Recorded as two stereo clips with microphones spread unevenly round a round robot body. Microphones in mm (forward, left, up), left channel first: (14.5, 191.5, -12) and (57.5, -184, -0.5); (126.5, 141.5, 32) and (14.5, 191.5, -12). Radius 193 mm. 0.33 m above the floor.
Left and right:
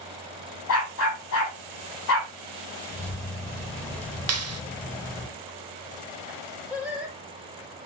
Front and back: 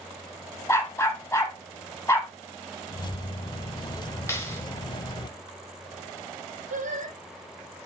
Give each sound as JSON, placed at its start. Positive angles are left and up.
{"t": 0.7, "sound": "a dog barking", "azimuth_deg": 45, "distance_m": 6.0}
{"t": 2.9, "sound": "keys jangling", "azimuth_deg": 25, "distance_m": 0.5}
{"t": 4.3, "sound": "a clap", "azimuth_deg": -110, "distance_m": 0.8}
{"t": 6.7, "sound": "singing", "azimuth_deg": -170, "distance_m": 3.0}